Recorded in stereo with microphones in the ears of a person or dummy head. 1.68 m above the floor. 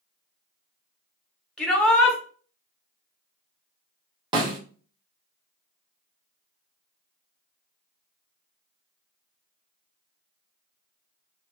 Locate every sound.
1.6 s a shout: 5° left (ahead or behind), 1.5 m
4.3 s a snare drum: 25° right (ahead or behind), 1.1 m